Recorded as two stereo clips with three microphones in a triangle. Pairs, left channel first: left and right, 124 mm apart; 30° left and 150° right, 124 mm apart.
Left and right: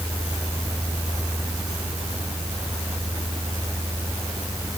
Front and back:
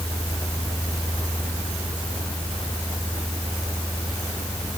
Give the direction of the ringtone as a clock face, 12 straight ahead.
I don't hear a ringtone.